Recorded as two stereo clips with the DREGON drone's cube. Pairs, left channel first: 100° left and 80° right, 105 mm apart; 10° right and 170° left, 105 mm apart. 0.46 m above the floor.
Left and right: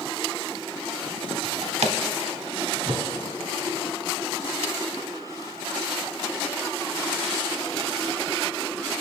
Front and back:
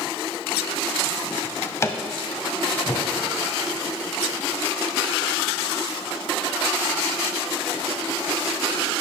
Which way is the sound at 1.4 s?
75° right.